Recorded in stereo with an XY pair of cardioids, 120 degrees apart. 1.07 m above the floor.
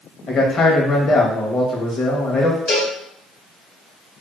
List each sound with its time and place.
0.3 s a man speaking: 45° left, 1.0 m
2.7 s a cowbell: 65° left, 1.3 m